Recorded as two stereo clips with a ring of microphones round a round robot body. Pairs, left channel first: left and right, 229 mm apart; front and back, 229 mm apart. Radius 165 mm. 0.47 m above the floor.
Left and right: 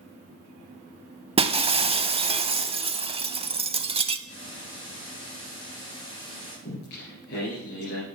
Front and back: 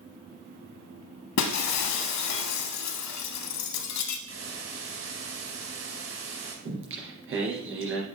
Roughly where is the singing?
Behind left.